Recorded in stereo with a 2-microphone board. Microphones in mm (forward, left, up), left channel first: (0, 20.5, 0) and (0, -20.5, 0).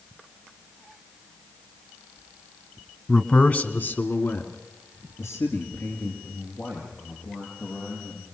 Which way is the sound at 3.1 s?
15° left (ahead or behind).